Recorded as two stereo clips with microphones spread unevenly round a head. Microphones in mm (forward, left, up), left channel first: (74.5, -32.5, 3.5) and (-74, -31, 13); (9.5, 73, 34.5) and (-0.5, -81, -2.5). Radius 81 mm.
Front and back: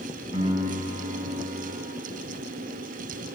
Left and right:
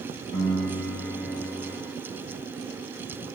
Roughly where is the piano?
Behind left.